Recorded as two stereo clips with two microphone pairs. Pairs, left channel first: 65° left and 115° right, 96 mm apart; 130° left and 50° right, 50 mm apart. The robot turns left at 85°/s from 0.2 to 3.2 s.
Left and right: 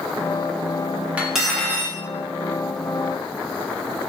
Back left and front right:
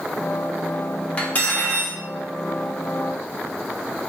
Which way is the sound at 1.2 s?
Straight behind.